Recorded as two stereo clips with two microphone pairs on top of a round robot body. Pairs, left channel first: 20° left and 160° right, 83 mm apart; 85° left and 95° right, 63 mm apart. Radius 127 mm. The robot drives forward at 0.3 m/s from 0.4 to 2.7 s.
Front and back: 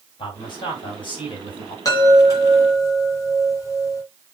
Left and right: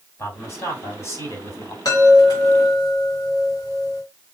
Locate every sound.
0.2 s a man speaking: 40° left, 3.5 m; by 1.8 s 45° left, 3 m
1.9 s a chime: 65° left, 3 m; by 4.0 s 70° left, 3 m